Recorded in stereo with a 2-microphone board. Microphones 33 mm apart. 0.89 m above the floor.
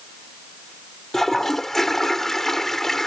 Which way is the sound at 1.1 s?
10° left (ahead or behind).